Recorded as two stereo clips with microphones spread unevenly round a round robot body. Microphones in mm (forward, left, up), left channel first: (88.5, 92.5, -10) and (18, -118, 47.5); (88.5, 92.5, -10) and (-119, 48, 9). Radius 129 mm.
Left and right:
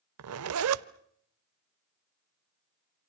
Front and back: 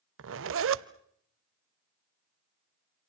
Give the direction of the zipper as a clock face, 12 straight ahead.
5 o'clock.